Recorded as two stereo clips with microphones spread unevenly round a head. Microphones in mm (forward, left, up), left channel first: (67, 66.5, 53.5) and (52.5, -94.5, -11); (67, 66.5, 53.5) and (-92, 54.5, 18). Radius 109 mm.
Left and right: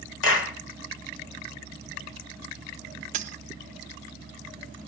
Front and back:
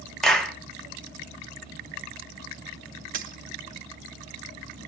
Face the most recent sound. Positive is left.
turn(degrees=-150)